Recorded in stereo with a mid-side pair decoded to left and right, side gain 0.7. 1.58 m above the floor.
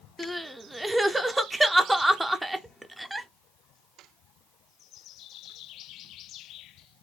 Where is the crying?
5° right, 0.5 m.